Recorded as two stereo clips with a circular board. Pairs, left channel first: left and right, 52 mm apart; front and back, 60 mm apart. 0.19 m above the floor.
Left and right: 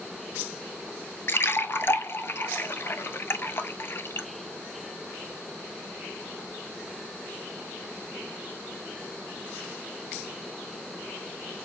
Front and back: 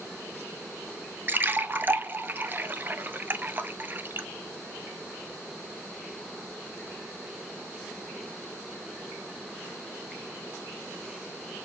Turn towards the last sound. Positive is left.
turn(degrees=125)